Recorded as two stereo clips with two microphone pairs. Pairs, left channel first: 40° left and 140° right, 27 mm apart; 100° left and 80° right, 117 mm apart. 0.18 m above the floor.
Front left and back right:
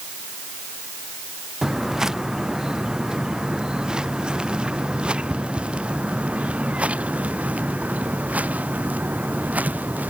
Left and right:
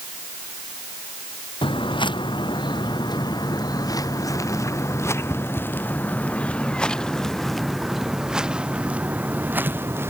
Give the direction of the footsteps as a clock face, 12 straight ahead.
7 o'clock.